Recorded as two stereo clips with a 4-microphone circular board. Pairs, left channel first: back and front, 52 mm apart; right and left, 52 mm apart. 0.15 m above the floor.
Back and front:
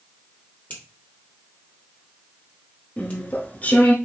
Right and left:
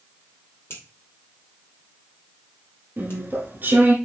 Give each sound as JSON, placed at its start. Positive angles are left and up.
{"t": 0.7, "sound": "a finger snap", "azimuth_deg": -125, "distance_m": 3.0}
{"t": 3.0, "sound": "chewing", "azimuth_deg": 130, "distance_m": 1.2}